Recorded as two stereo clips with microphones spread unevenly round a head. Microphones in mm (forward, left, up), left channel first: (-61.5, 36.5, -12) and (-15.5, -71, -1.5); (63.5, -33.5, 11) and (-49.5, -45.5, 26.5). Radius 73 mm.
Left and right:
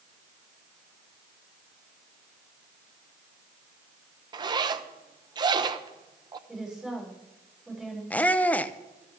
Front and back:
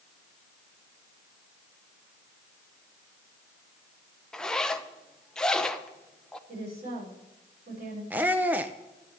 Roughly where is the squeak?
Behind.